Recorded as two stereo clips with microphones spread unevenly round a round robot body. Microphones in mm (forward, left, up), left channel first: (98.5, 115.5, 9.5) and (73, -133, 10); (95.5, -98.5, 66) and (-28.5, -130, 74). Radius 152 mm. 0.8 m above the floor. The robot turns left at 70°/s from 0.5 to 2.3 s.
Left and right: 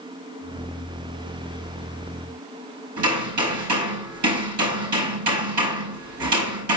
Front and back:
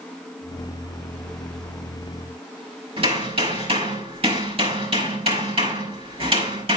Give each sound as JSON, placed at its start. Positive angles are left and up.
{"t": 3.0, "sound": "hammering", "azimuth_deg": -125, "distance_m": 5.0}